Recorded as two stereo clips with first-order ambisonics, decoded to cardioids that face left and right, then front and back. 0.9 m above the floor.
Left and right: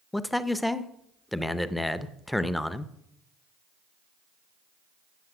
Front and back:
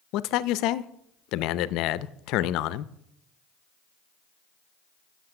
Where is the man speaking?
5° left, 0.6 m.